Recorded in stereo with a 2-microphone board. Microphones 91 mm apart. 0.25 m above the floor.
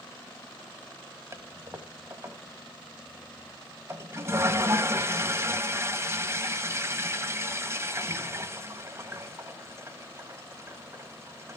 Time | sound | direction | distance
1.3 | a toilet flushing | 30° right (ahead or behind) | 1.3 m